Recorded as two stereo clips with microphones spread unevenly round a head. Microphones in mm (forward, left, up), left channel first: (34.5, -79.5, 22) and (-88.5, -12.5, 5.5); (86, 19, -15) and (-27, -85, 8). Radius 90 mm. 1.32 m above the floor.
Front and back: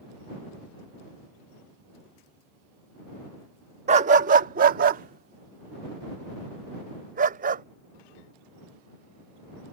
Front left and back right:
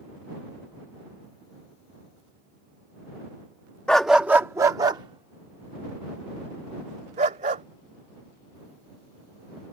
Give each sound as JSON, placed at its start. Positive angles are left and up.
{"t": 3.9, "sound": "a dog barking", "azimuth_deg": 135}